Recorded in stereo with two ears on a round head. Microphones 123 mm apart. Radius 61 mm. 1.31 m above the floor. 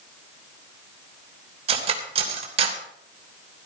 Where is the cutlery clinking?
45° right (ahead or behind), 3 m.